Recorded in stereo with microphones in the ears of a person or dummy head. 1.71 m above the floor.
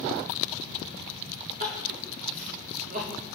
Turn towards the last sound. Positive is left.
turn(degrees=-50)  # may be behind; listen again after turning